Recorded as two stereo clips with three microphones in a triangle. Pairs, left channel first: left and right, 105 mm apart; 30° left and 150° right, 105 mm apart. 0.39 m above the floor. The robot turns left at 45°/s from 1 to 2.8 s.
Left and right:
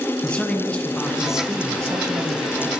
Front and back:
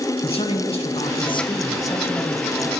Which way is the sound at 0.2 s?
10° left.